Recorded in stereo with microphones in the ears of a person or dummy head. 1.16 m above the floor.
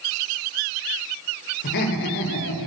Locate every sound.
1.6 s laughter: 55° left (ahead or behind), 6 m; by 2.7 s 70° left (ahead or behind), 5.5 m